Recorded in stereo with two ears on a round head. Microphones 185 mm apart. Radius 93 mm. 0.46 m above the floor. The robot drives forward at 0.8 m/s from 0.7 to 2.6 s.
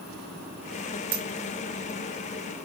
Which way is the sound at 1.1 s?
45° right (ahead or behind).